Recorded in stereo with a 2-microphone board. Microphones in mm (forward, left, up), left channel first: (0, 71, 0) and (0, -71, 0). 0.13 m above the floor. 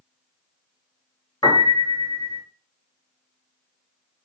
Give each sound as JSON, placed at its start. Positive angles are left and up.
{"t": 1.4, "sound": "a piano", "side_deg": 30, "distance_m": 1.4}